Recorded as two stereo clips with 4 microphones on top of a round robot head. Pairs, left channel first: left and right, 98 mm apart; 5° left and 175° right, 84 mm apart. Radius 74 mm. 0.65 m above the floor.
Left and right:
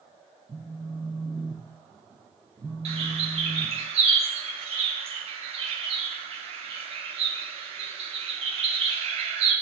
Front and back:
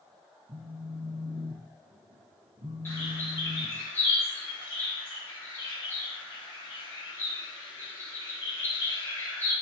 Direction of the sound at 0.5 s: 165° right.